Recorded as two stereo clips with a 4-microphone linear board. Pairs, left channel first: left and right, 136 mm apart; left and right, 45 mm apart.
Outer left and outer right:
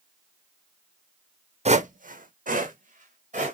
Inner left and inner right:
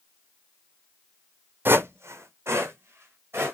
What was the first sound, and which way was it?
Footsteps, 50° right (ahead or behind).